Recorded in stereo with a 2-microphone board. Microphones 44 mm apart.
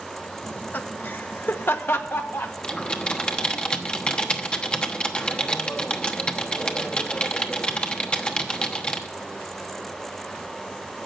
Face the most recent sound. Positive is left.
turn(degrees=25)  # may be behind; listen again after turning